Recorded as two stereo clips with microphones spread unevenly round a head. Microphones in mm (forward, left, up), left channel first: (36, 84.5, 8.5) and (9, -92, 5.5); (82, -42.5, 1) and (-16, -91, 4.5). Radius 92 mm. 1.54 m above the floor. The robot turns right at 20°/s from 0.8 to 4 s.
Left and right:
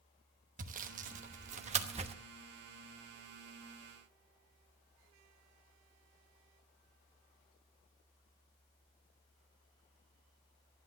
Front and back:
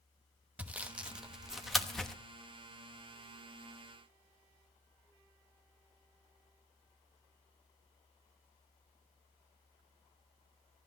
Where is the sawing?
85° right, 1.0 m; by 2.1 s 60° right, 1.0 m.